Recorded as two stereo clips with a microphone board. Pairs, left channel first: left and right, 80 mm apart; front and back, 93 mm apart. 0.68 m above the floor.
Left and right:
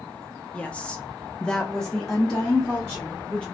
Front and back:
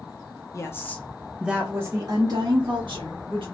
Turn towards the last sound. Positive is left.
turn(degrees=180)